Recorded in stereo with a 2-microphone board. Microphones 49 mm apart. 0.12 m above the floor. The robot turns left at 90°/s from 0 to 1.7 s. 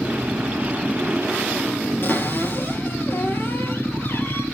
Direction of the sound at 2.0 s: 50° left (ahead or behind).